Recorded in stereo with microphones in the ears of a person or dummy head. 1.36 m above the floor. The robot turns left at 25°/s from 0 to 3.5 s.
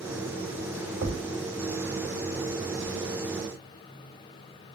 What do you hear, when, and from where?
1.0 s a thud: 70° right (ahead or behind), 2 m